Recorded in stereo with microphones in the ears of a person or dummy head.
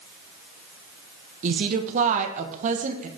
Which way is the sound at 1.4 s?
40° right (ahead or behind).